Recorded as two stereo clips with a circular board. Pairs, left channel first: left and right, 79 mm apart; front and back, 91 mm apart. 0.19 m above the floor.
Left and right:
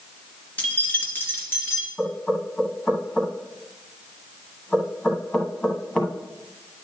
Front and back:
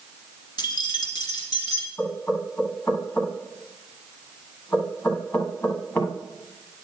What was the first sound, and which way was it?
Keys jangling, 20° left.